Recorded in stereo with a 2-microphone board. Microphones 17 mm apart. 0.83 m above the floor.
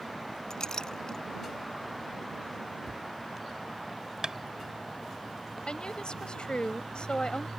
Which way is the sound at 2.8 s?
5° right (ahead or behind).